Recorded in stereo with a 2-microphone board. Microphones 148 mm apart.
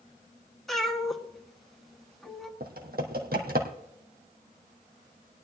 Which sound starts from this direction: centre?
A cat meowing, at 0.7 s.